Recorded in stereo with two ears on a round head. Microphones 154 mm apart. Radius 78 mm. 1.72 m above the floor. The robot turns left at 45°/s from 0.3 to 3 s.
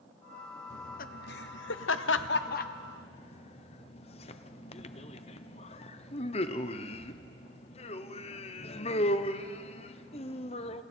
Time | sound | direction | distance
0.7 | laughter | 40° left (ahead or behind) | 1.0 m